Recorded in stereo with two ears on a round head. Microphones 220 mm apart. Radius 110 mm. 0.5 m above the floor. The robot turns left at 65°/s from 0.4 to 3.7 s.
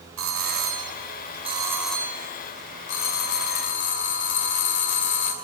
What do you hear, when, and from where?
0.2 s a doorbell: 85° right, 3.5 m; by 5.3 s 60° left, 3.5 m